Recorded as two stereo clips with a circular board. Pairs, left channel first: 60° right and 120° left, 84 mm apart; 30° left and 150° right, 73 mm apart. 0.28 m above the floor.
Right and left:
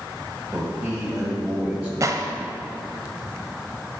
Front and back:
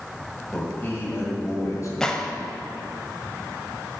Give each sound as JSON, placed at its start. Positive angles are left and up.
{"t": 0.5, "sound": "a man speaking", "azimuth_deg": 80, "distance_m": 1.5}
{"t": 2.0, "sound": "a gunshot", "azimuth_deg": 105, "distance_m": 0.6}